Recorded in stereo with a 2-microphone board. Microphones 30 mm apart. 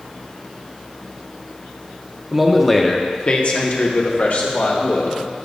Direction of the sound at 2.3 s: 15° right (ahead or behind).